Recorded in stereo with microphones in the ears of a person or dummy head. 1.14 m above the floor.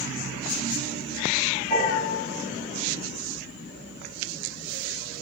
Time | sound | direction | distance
1.7 | a piano | 45° left (ahead or behind) | 3 m